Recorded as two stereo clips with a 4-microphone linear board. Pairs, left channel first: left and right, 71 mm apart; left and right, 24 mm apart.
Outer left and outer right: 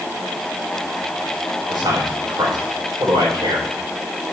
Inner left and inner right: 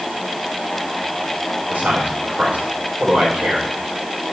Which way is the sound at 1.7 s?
85° right.